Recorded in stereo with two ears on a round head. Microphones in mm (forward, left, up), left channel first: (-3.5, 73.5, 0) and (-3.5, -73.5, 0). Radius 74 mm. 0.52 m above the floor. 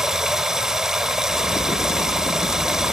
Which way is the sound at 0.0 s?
5° right (ahead or behind).